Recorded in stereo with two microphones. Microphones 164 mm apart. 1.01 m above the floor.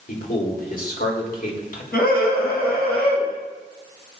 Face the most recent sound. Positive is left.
turn(degrees=75)  # may be behind; listen again after turning